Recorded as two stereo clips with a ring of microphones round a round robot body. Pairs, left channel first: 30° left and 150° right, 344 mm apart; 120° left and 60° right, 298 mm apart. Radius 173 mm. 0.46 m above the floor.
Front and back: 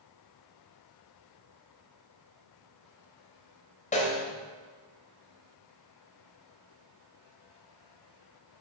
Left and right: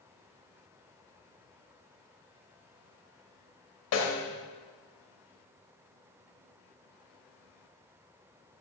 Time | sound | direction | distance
3.9 | a snare drum | 95° left | 2.5 m